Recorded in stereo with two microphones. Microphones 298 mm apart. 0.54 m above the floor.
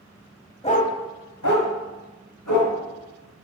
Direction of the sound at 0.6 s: 20° left (ahead or behind).